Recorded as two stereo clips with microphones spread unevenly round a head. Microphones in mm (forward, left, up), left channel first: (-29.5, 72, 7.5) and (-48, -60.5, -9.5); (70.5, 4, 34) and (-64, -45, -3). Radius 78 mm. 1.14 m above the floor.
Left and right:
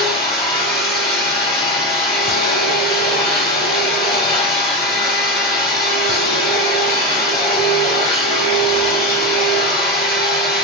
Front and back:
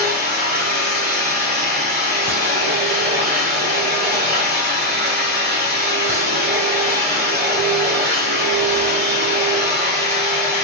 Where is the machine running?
125° left, 2.5 m.